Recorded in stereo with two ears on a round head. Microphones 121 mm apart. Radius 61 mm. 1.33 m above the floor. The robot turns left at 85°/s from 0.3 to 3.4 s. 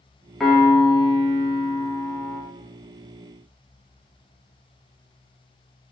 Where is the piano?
Straight behind, 0.6 m; by 2.4 s 10° left, 0.6 m.